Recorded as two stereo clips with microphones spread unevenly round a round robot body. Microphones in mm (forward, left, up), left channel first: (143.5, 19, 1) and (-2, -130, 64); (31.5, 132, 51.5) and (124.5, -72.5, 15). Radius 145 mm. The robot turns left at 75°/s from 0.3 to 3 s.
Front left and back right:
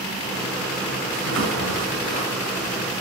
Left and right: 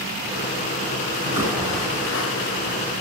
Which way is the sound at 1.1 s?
115° right.